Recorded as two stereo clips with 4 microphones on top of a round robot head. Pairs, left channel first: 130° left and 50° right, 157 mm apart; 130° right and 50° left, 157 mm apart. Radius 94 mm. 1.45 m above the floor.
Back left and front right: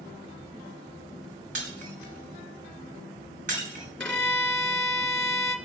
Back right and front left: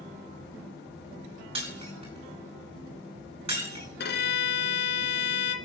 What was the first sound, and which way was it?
Breaking glass, 10° right.